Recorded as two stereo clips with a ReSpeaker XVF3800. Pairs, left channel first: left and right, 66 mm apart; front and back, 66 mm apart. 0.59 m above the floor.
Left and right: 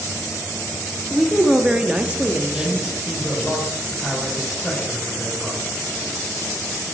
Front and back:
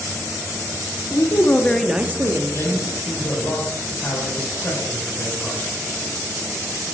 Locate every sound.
1.1 s a woman speaking: straight ahead, 0.9 m; by 2.9 s 165° right, 1.2 m
2.5 s a man speaking: 20° left, 2.5 m